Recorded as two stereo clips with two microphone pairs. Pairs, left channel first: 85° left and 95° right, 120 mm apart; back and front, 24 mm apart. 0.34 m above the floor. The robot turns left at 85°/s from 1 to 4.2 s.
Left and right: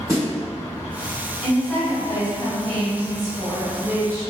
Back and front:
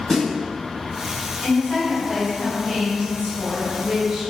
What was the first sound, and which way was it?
A snare drum, 120° right.